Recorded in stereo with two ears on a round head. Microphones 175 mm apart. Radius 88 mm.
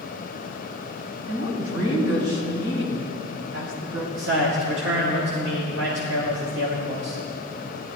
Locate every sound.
1.3 s a woman speaking: 80° right, 3.5 m
4.2 s a man speaking: 65° right (ahead or behind), 1.9 m